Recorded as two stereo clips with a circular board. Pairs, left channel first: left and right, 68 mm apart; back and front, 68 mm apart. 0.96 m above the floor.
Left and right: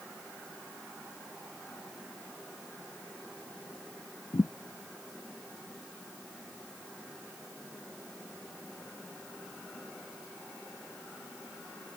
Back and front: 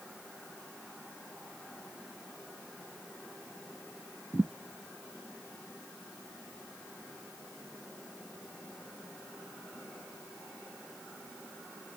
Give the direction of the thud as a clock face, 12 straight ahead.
10 o'clock.